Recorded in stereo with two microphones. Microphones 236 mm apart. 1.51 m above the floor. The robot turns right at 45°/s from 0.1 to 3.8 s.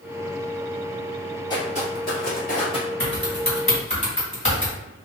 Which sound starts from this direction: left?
Typing on a keyboard, at 3.0 s.